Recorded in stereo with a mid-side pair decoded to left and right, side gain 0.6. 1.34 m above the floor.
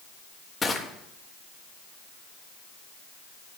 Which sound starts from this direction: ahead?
Crushing, at 0.6 s.